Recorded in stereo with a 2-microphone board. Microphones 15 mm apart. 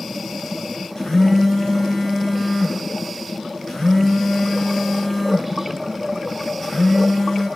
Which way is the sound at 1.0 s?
50° left (ahead or behind).